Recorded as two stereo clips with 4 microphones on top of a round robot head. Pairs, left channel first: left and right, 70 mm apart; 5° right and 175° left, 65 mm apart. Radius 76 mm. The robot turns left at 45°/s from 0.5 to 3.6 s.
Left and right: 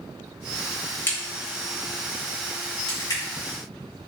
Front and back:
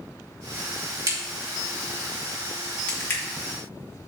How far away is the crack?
About 3 m.